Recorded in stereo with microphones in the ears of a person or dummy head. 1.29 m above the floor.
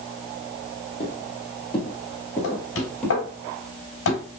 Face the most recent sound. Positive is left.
turn(degrees=85)